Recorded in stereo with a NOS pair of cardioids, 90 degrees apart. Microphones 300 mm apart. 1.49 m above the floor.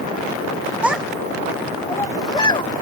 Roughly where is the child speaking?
Ahead.